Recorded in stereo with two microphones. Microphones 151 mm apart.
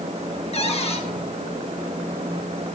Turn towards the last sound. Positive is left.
turn(degrees=45)  # may be behind; listen again after turning